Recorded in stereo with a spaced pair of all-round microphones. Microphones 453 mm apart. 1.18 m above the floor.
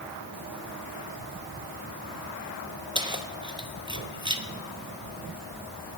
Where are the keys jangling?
10° right (ahead or behind), 0.9 m.